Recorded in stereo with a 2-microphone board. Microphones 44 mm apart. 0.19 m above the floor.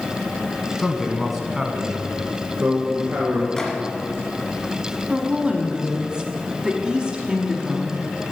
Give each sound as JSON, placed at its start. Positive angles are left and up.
{"t": 0.8, "sound": "a man speaking", "side_deg": 10, "distance_m": 1.1}
{"t": 3.6, "sound": "a microwave", "side_deg": 15, "distance_m": 1.7}
{"t": 5.1, "sound": "a woman speaking", "side_deg": -15, "distance_m": 1.1}